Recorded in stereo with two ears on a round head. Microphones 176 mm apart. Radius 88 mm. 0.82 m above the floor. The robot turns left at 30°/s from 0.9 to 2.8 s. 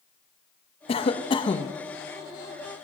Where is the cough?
30° left (ahead or behind), 0.7 m; by 1.7 s 20° left (ahead or behind), 0.7 m.